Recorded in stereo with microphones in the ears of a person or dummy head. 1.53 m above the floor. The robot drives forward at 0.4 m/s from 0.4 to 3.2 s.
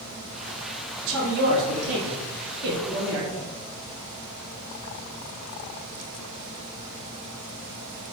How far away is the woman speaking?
About 1.1 m.